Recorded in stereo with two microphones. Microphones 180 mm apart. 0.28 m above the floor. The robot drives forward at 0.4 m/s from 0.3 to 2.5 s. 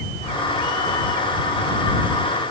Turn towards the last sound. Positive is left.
No sound to turn to.